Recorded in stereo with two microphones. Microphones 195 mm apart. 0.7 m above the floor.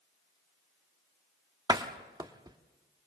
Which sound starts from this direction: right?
A door slam, at 1.7 s.